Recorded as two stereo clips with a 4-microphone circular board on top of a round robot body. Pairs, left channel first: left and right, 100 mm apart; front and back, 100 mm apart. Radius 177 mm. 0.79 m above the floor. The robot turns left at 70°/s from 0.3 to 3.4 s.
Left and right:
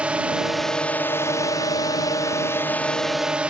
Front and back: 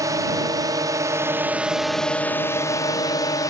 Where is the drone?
160° right; by 3.5 s 15° right.